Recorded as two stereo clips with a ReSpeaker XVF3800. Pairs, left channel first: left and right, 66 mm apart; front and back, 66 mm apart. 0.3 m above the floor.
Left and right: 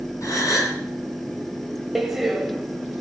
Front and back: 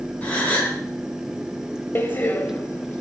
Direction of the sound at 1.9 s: 10° right.